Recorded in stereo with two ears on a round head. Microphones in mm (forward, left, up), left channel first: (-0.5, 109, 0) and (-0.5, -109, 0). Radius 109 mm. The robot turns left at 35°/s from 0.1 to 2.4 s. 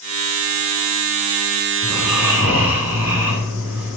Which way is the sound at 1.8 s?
75° right (ahead or behind).